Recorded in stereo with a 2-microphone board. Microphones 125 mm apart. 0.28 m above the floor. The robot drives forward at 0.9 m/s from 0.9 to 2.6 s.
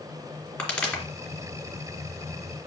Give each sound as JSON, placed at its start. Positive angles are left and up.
{"t": 0.6, "sound": "a pop", "side_deg": 10, "distance_m": 2.5}